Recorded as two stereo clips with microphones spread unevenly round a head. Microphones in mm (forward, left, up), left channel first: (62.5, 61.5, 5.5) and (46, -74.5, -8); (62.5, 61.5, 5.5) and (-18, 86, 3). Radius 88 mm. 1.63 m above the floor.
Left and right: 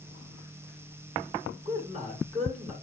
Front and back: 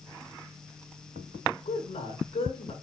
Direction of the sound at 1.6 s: 55° right.